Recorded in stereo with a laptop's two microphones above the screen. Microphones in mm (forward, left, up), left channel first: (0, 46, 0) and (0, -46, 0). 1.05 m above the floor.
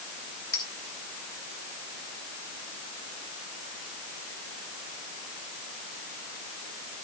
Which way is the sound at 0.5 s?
45° left (ahead or behind).